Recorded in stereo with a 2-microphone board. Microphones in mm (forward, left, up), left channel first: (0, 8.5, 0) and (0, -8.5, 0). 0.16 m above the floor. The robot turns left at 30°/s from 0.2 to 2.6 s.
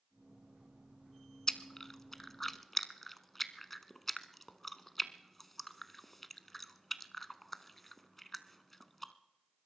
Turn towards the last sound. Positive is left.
turn(degrees=5)  # may be behind; listen again after turning